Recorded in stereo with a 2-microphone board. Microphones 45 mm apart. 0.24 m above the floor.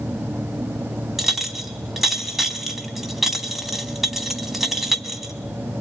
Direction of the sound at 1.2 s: 5° right (ahead or behind).